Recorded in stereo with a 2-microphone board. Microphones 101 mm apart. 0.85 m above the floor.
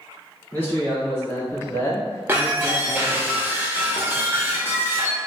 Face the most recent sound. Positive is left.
turn(degrees=-25)  # may be behind; listen again after turning